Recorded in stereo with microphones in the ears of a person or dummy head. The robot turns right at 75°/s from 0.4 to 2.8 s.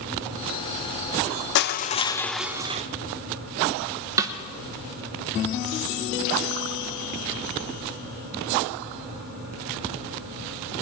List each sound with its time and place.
1.6 s crushing: 115° left, 0.5 m; by 2.8 s 150° right, 0.5 m
4.2 s a snare drum: 20° right (ahead or behind), 0.9 m